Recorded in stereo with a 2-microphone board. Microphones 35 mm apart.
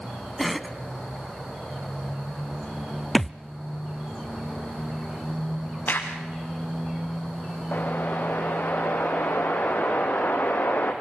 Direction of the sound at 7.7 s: 55° left (ahead or behind).